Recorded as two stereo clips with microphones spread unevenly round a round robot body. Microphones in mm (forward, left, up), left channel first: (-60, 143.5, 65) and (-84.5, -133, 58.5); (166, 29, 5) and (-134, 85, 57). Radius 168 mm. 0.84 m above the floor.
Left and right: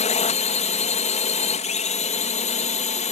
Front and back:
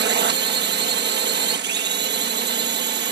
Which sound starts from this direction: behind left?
A drone, at 0.0 s.